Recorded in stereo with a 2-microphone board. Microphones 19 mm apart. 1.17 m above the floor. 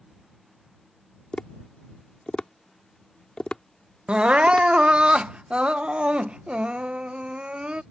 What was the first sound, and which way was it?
Tapping, 60° left (ahead or behind).